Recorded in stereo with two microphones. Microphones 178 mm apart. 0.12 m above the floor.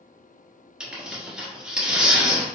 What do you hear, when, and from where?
0.8 s tearing paper: 5° right (ahead or behind), 1.2 m